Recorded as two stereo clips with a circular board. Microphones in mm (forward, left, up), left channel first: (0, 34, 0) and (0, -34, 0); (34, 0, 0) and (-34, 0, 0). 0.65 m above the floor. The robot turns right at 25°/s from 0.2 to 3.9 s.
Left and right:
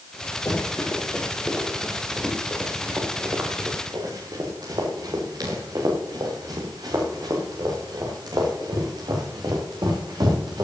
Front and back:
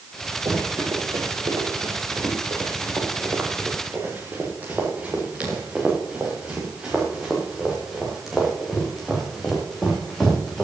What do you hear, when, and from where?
0.5 s running footsteps: 145° left, 5.5 m; by 10.7 s 85° right, 7 m